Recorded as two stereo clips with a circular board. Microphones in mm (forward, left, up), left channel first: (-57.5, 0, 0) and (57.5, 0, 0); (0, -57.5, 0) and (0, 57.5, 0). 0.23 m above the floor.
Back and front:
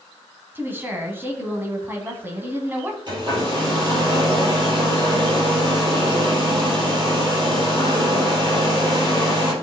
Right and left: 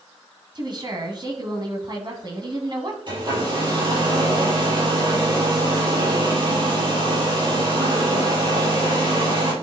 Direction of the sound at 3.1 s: 45° left.